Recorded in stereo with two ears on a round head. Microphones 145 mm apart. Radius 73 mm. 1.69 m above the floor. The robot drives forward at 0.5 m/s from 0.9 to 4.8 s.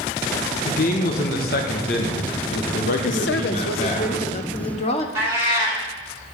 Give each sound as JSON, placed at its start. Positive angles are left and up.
{"t": 0.7, "sound": "a man speaking", "side_deg": 60, "distance_m": 1.4}
{"t": 3.1, "sound": "a woman speaking", "side_deg": 80, "distance_m": 0.7}
{"t": 5.2, "sound": "a cat meowing", "side_deg": -15, "distance_m": 2.5}